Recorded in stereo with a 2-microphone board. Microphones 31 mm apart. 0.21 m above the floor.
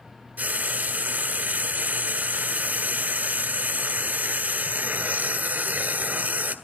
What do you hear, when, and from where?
0.4 s frying: 70° right (ahead or behind), 1.4 m